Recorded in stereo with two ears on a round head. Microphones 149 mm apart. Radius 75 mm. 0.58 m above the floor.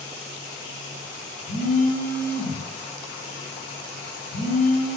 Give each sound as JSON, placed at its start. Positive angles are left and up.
{"t": 1.5, "sound": "a phone buzzing", "side_deg": 70, "distance_m": 3.5}